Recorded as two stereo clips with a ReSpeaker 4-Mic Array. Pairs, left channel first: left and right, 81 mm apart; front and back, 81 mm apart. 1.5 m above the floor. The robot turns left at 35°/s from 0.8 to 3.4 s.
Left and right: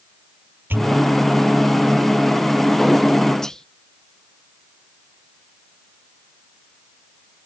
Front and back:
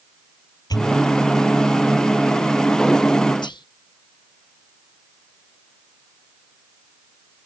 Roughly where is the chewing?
No chewing in this recording.